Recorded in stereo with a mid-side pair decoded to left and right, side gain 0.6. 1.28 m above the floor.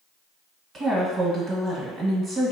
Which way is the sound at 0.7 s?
45° right.